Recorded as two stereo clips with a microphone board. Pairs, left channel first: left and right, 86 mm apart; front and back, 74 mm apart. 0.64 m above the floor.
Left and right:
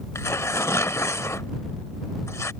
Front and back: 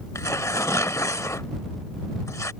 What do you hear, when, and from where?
0.1 s tearing paper: 35° left